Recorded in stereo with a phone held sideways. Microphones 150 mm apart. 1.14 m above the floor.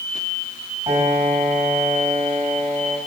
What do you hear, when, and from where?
0.9 s a piano: 30° right (ahead or behind), 5 m